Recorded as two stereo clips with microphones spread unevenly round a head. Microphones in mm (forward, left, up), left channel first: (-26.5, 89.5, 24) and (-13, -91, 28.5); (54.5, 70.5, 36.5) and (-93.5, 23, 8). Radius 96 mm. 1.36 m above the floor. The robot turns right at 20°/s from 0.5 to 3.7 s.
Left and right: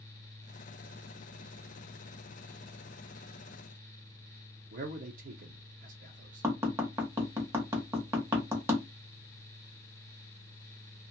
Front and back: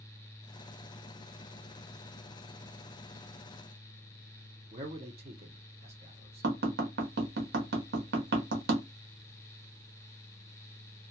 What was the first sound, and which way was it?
A man speaking, 125° right.